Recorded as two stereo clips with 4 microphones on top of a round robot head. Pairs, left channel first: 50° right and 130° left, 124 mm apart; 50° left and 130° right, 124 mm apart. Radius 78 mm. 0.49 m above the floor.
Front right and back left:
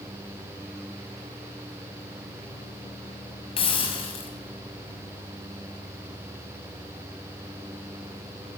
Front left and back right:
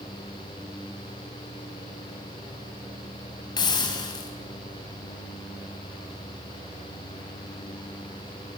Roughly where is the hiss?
Ahead.